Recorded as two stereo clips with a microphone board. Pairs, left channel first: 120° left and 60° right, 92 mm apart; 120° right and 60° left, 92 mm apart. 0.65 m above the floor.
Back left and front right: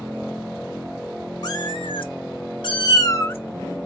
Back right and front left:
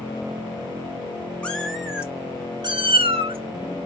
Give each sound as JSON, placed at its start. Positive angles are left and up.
{"t": 1.4, "sound": "a cat meowing", "azimuth_deg": 160, "distance_m": 1.1}